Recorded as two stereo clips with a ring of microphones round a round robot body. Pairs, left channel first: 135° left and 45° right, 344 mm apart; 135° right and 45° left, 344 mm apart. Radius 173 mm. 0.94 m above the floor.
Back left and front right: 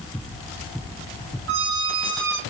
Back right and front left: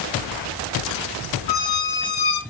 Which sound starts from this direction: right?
A squeak, at 1.5 s.